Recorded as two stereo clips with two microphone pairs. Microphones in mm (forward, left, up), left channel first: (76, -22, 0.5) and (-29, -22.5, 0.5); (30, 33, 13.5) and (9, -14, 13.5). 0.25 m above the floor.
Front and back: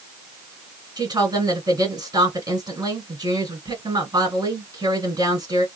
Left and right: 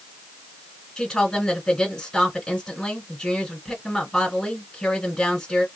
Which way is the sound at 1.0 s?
145° left.